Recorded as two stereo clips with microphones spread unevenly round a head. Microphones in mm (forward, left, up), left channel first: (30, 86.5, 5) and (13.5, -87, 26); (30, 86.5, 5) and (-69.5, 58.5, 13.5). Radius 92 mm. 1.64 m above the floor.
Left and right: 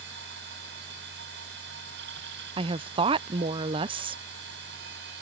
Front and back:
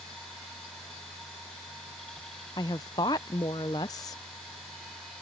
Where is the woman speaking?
45° right.